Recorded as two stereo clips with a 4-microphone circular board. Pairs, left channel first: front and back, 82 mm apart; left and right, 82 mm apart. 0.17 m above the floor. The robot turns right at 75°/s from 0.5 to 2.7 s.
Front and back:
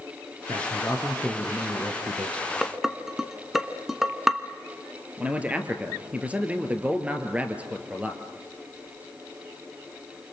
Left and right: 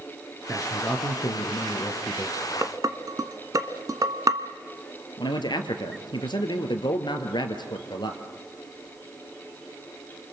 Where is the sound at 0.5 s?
15° left, 3 m; by 2.4 s 155° left, 3 m.